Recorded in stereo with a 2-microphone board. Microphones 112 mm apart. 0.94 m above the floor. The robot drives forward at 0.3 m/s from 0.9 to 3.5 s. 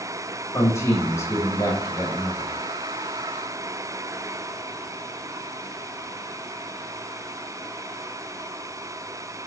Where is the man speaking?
25° left (ahead or behind), 1.1 m; by 2.5 s 35° left (ahead or behind), 0.8 m.